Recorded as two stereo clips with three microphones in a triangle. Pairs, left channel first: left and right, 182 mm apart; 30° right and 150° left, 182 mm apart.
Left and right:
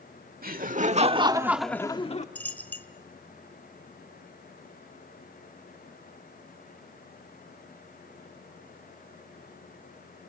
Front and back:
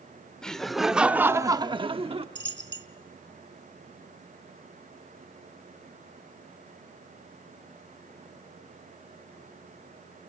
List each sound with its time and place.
0.4 s laughter: 115° right, 1.6 m; by 2.2 s 110° left, 1.1 m
2.4 s a dropped coin: 170° left, 0.9 m